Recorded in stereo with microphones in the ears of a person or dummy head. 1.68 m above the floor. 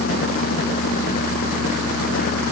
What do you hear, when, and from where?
Only background noise.